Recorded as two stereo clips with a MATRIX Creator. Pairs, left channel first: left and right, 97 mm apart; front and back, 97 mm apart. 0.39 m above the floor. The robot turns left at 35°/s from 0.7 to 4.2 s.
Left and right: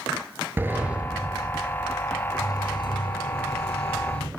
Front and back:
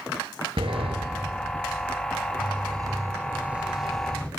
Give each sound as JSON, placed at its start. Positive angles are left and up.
{"t": 0.6, "sound": "a sliding door", "azimuth_deg": -160, "distance_m": 2.5}